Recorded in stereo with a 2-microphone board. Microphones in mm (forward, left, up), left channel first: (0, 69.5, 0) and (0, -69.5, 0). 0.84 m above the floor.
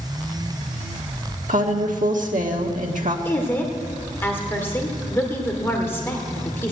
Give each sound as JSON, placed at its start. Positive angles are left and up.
{"t": 1.5, "sound": "a woman speaking", "side_deg": -70, "distance_m": 1.6}
{"t": 3.2, "sound": "a woman speaking", "side_deg": 15, "distance_m": 2.0}